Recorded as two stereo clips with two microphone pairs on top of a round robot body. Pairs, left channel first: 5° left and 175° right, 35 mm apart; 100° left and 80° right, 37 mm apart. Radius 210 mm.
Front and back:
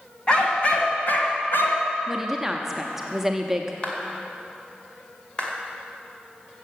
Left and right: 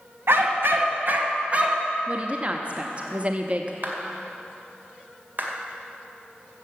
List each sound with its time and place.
0.3 s a dog barking: 60° right, 1.8 m; by 1.9 s 15° right, 1.5 m
2.1 s a woman speaking: 105° right, 1.1 m
3.8 s a clap: 55° right, 2.5 m